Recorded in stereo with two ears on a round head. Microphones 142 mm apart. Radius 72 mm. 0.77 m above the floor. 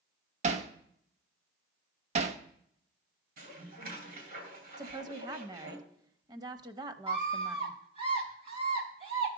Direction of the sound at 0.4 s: 45° right (ahead or behind).